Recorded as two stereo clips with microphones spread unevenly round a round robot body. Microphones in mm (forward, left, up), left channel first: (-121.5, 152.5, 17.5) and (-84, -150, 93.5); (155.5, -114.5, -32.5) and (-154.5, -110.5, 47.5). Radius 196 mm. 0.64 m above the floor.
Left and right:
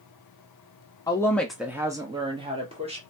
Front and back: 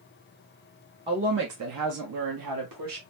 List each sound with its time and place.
1.1 s a woman speaking: 90° left, 0.6 m; by 3.0 s 160° right, 1.4 m